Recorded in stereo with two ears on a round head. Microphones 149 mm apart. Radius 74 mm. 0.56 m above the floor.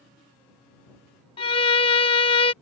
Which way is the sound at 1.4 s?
35° left (ahead or behind).